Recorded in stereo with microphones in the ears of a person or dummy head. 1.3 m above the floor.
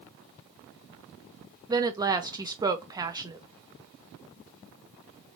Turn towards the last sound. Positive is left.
turn(degrees=-25)  # may be behind; listen again after turning